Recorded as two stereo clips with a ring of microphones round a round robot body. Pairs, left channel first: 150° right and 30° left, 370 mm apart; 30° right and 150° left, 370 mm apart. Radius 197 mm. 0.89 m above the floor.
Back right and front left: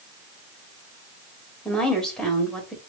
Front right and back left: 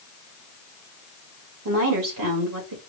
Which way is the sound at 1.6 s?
120° left.